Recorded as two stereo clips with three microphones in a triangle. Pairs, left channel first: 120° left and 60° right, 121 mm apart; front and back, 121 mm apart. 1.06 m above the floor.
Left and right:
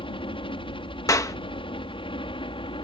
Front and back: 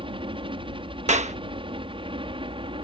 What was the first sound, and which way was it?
A helicopter, 150° left.